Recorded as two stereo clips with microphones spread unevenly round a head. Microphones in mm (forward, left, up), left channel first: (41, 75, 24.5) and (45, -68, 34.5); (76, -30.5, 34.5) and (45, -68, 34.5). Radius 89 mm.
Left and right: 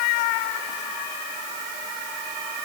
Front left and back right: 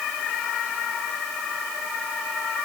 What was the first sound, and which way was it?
Only background noise.